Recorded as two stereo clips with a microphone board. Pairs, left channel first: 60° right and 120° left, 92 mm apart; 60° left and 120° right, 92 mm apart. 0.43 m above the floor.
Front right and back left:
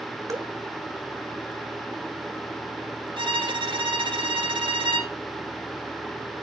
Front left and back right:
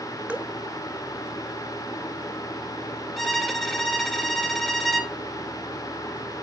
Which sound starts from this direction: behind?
Dripping, at 0.3 s.